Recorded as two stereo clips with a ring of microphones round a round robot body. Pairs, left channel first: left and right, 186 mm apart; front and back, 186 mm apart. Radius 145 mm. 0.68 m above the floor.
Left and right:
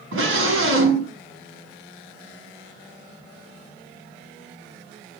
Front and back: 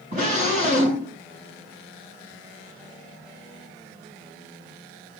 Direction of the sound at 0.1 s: 115° right.